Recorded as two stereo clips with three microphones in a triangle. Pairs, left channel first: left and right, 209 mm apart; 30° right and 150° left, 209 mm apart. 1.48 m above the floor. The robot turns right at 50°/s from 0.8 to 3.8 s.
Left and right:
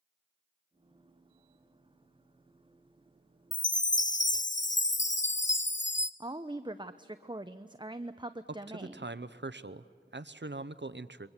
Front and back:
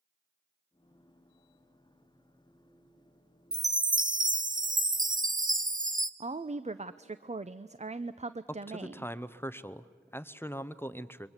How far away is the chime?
About 0.7 m.